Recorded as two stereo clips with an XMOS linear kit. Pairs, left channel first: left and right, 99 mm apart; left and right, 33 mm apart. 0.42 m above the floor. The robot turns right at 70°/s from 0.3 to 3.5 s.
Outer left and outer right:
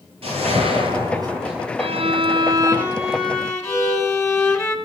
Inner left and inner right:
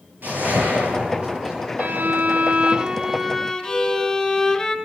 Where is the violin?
90° right, 3.5 m; by 4.8 s 30° left, 3.5 m.